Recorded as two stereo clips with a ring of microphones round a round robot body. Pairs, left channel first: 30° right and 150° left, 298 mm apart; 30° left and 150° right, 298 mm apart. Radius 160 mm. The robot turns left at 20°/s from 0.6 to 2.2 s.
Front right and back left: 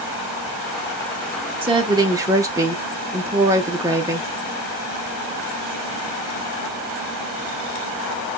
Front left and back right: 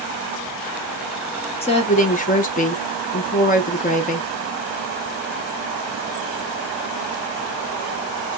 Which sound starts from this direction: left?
A woman speaking, at 1.6 s.